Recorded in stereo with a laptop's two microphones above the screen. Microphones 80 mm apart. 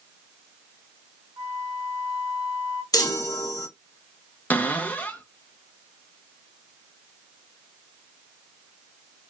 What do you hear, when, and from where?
1.4 s a flute: 85° right, 2 m
2.9 s a chime: 50° left (ahead or behind), 0.6 m
4.5 s a cupboard door: 20° left (ahead or behind), 0.5 m